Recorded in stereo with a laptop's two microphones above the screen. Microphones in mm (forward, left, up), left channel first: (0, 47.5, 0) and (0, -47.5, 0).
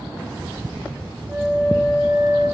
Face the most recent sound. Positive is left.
turn(degrees=-50)  # may be behind; listen again after turning